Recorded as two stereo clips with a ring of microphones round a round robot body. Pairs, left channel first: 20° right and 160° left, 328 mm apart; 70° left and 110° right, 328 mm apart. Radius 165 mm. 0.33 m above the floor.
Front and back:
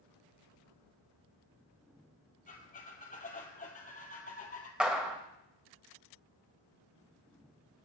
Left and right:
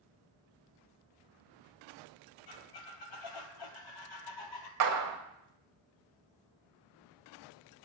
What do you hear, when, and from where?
2.5 s a squeak: 45° left, 1.3 m
4.8 s a clap: 115° right, 1.4 m